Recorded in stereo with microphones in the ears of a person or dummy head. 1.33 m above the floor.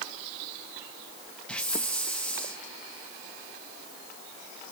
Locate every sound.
1.5 s a hiss: 5° left (ahead or behind), 1.1 m